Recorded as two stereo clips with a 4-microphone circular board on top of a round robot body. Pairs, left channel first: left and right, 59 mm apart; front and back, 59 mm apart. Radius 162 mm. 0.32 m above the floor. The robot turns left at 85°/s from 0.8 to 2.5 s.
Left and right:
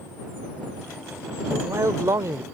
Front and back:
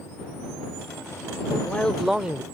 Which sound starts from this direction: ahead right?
A man speaking, at 1.5 s.